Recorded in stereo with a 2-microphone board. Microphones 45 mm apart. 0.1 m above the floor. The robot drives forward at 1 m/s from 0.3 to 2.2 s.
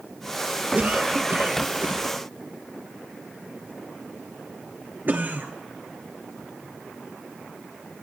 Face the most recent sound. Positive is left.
turn(degrees=-45)  # may be behind; listen again after turning